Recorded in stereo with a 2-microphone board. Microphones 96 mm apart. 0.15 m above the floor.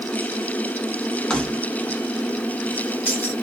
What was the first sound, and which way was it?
Keys jangling, 10° left (ahead or behind).